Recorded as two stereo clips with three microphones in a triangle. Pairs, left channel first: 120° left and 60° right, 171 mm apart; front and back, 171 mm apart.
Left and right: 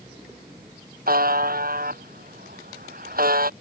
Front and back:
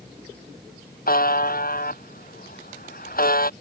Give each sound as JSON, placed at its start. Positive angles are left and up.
{"t": 1.1, "sound": "a buzzer", "azimuth_deg": -30}